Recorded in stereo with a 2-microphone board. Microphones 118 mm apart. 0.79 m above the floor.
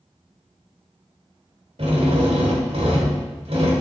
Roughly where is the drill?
Right.